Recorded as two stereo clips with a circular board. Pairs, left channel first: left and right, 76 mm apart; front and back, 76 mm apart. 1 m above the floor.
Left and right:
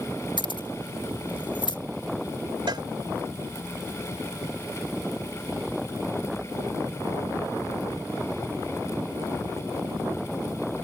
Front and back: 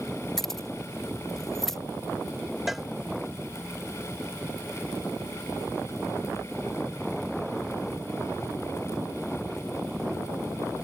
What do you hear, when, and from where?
0.4 s keys jangling: 85° left
2.7 s a cowbell: 95° right